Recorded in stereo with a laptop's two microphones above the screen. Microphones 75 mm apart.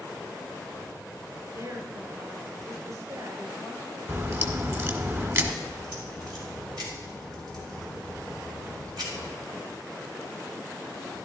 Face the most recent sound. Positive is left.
turn(degrees=-65)  # may be behind; listen again after turning